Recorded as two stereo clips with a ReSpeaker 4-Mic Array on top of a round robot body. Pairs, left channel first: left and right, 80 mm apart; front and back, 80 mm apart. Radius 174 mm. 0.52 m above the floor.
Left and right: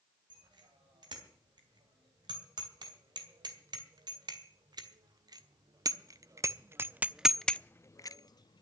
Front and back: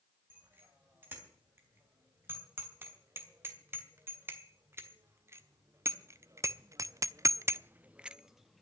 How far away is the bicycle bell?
About 4 m.